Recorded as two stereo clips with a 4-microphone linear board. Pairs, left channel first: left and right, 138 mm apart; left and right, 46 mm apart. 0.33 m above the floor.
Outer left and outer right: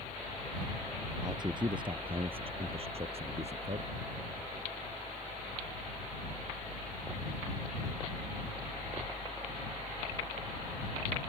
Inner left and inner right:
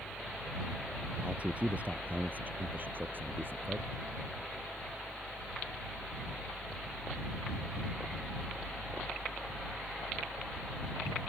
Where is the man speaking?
30° right (ahead or behind); by 3.9 s 50° right (ahead or behind).